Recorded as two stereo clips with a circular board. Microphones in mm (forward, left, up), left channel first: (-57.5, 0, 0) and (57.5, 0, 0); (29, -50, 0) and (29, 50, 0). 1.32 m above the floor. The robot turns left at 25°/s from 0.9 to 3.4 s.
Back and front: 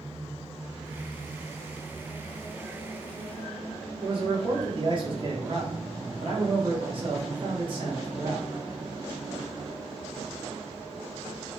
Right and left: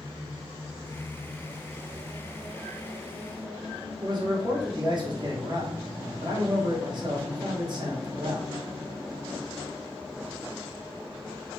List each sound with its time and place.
4.0 s a man speaking: 45° left, 1.1 m